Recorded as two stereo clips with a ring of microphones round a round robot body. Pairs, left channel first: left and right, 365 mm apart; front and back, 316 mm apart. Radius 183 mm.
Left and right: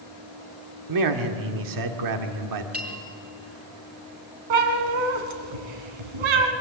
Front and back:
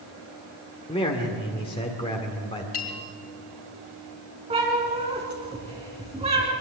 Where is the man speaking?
75° right, 1.5 m.